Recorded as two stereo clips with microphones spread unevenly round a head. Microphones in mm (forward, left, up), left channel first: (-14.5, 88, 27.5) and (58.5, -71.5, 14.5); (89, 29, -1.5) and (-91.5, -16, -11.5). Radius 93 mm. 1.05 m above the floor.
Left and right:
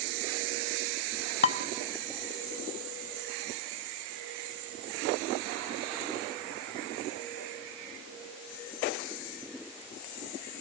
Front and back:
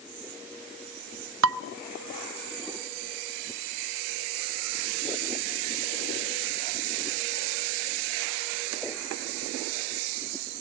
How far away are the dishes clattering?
About 0.9 m.